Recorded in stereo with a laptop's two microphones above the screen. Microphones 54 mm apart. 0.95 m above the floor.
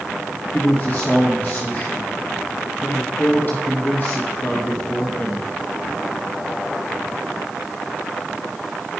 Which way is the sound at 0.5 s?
35° left (ahead or behind).